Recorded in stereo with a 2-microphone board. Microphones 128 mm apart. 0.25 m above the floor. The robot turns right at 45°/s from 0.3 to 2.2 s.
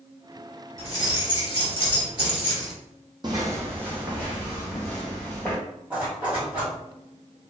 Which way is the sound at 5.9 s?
10° right (ahead or behind).